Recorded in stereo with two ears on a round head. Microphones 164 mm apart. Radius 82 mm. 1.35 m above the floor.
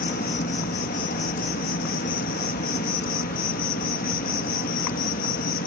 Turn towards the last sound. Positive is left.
turn(degrees=50)  # may be behind; listen again after turning